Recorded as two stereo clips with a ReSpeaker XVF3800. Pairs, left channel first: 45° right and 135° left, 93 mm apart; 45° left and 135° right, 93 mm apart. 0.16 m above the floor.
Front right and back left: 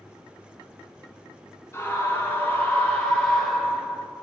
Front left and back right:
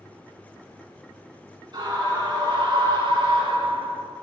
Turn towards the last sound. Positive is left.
turn(degrees=-135)